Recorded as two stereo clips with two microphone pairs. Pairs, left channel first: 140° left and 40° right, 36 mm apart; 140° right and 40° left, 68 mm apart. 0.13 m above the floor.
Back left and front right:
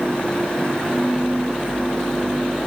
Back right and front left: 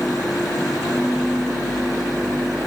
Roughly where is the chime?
I don't hear a chime.